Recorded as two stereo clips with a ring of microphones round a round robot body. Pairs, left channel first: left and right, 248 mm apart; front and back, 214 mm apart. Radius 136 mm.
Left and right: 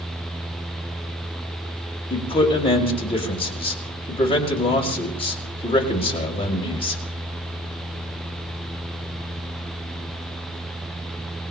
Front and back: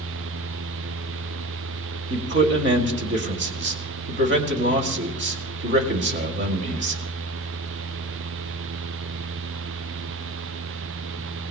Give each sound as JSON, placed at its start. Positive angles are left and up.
{"t": 2.1, "sound": "a man speaking", "azimuth_deg": 155, "distance_m": 2.5}